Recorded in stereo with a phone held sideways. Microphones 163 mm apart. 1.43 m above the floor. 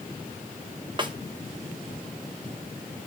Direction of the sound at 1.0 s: 30° right (ahead or behind).